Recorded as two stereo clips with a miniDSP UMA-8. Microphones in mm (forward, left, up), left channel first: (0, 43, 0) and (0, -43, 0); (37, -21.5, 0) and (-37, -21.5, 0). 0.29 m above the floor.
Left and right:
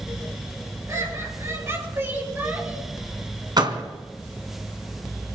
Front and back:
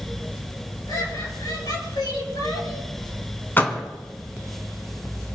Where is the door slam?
65° right, 2 m.